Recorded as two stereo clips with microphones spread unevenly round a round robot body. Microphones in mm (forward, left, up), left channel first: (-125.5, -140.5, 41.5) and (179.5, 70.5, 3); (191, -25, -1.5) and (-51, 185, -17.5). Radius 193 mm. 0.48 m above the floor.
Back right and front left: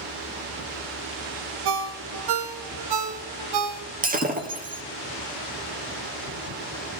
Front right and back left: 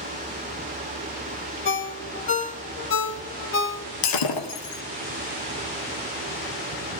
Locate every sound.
1.6 s a ringtone: 15° left, 1.6 m
4.0 s breaking glass: 35° right, 2 m